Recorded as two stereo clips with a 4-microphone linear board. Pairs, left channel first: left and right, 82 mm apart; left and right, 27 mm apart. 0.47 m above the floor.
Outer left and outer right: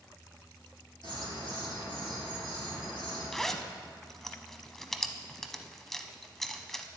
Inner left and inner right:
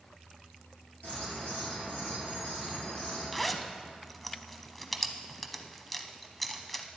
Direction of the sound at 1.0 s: 65° left (ahead or behind).